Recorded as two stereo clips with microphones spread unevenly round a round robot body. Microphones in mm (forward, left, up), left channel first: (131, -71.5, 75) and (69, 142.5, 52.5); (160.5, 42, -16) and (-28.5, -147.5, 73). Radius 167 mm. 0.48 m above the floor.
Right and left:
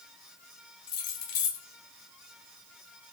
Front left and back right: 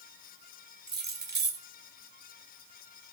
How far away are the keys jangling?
About 1.3 m.